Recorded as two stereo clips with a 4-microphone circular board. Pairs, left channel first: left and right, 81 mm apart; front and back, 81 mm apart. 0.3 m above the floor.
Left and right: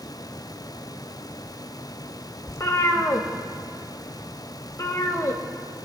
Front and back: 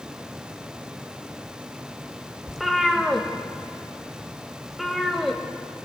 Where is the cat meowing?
90° left, 0.8 m.